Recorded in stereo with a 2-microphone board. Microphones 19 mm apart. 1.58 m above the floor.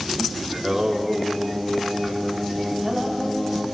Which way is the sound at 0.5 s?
30° right (ahead or behind).